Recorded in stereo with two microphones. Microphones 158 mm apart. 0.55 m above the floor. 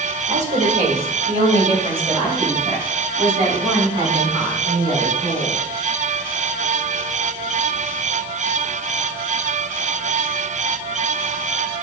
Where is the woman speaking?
50° right (ahead or behind), 1.9 m; by 5.6 s 30° right (ahead or behind), 5.5 m.